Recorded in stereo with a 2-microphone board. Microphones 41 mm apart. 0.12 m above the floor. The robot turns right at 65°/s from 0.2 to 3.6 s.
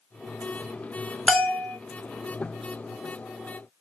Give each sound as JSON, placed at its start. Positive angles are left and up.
{"t": 1.3, "sound": "a bell", "azimuth_deg": 75, "distance_m": 1.7}